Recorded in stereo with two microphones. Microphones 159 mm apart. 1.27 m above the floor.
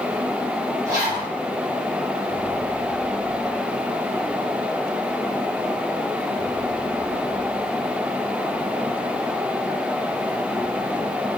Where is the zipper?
20° right (ahead or behind), 1.3 m.